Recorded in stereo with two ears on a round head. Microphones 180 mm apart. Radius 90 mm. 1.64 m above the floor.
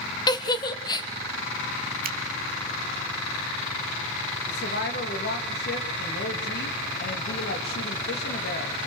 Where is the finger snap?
50° right (ahead or behind), 1.8 m.